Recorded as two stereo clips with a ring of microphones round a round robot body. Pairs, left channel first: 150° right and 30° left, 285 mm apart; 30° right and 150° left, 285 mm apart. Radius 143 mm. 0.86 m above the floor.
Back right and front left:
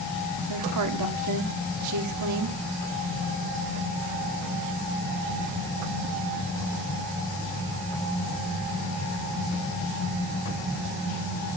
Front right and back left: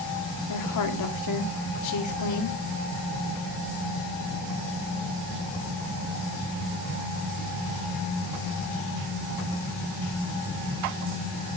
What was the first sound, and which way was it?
A woman speaking, straight ahead.